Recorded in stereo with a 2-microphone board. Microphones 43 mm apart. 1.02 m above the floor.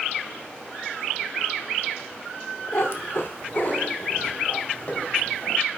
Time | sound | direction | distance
2.7 | a cat meowing | 65° left (ahead or behind) | 1.0 m